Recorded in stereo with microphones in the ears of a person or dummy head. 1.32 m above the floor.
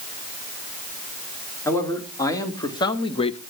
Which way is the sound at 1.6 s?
20° left (ahead or behind).